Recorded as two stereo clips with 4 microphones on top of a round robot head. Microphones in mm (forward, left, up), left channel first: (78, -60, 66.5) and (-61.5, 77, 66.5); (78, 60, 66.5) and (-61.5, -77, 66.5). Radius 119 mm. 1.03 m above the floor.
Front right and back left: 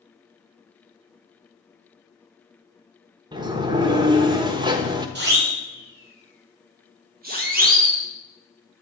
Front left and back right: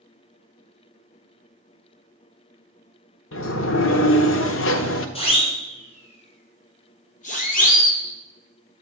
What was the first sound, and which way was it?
A sliding door, 70° left.